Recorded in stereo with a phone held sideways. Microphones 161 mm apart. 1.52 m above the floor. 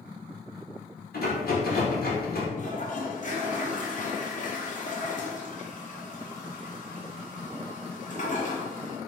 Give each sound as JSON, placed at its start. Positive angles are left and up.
{"t": 1.1, "sound": "a rattle", "side_deg": 70, "distance_m": 1.2}
{"t": 2.6, "sound": "a toilet flushing", "side_deg": 50, "distance_m": 0.9}